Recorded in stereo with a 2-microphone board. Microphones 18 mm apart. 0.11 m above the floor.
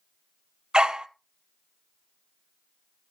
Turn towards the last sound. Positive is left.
turn(degrees=-60)  # may be behind; listen again after turning